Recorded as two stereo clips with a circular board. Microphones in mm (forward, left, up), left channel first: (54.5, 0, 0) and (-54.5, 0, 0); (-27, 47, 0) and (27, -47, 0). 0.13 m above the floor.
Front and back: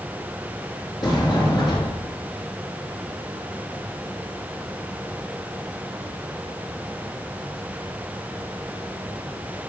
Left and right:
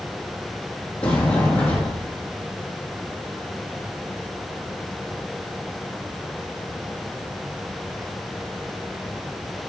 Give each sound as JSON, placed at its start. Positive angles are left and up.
{"t": 1.0, "sound": "a sliding door", "azimuth_deg": 45, "distance_m": 4.0}